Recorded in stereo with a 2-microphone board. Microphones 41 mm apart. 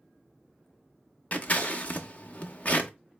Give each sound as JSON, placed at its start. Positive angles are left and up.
{"t": 1.3, "sound": "scissors", "side_deg": 40, "distance_m": 0.6}